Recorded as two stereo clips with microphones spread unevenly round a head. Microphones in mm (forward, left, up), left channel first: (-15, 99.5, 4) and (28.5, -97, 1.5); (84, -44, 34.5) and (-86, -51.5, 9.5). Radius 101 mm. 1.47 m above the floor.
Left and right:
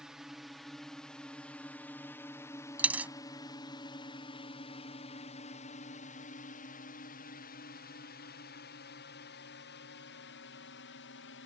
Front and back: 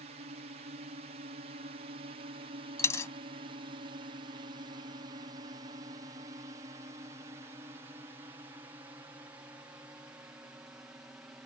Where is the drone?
165° right; by 11.5 s 100° left.